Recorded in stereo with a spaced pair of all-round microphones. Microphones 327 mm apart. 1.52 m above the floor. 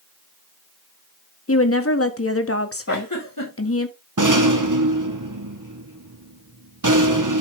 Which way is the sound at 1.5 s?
45° left (ahead or behind).